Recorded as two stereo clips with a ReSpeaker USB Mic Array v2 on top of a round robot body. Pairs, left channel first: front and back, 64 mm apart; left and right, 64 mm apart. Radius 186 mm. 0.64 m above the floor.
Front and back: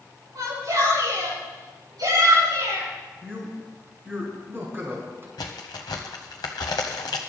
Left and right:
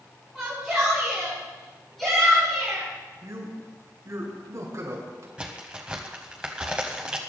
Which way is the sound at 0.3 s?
175° right.